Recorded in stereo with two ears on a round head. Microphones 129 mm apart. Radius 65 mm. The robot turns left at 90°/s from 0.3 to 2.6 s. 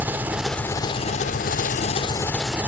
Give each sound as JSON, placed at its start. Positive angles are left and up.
{"t": 0.0, "sound": "an engine running", "azimuth_deg": -165, "distance_m": 1.2}